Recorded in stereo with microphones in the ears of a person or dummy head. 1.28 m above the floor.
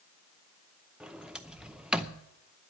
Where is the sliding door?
5° right (ahead or behind), 0.6 m.